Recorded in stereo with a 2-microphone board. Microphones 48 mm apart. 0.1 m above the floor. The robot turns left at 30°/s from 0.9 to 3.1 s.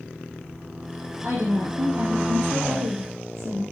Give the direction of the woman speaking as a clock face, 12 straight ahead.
2 o'clock.